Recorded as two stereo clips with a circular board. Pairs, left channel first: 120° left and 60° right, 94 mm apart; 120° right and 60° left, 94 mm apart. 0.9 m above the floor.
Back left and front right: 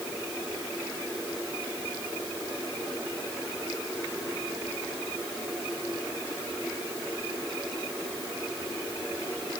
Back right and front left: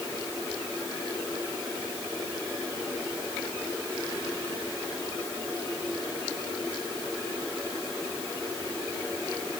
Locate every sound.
Only background noise.